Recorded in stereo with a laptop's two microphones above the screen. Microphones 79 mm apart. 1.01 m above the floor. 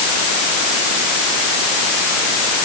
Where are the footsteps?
I don't hear footsteps.